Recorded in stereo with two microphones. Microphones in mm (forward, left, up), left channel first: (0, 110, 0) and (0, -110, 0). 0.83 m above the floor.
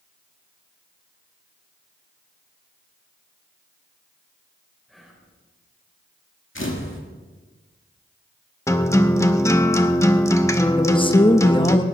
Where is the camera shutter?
60° left (ahead or behind), 2 m.